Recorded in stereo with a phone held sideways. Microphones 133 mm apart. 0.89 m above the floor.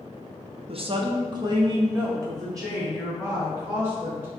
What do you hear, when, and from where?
0.7 s a woman speaking: 45° right (ahead or behind), 0.5 m; by 4.3 s 20° right (ahead or behind), 3.5 m